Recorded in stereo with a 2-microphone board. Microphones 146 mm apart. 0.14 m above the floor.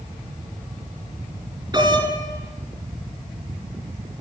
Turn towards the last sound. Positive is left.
turn(degrees=-30)  # may be behind; listen again after turning